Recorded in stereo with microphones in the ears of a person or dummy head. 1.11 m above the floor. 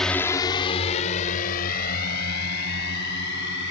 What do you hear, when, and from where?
0.0 s a drone: centre (ahead or behind); by 3.7 s 55° left (ahead or behind)